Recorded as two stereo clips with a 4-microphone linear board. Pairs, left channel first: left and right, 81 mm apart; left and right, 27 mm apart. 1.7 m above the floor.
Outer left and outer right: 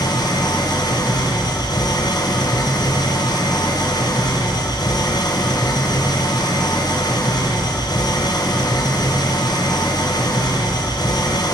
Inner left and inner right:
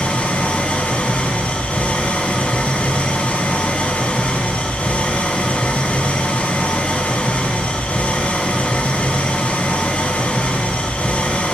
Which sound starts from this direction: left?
An engine running, at 0.0 s.